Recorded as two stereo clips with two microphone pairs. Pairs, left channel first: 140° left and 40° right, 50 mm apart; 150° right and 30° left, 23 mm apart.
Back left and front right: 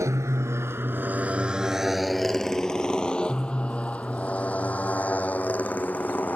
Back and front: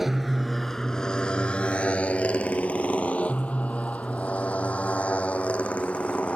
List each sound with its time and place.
0.0 s a motorcycle: 45° right; by 6.4 s 165° right